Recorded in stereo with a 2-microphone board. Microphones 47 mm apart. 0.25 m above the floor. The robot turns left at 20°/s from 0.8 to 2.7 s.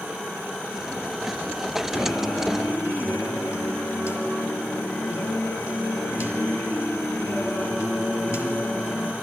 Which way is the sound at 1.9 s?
65° left (ahead or behind).